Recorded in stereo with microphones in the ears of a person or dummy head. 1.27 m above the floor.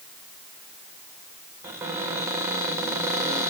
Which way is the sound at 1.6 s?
20° right (ahead or behind).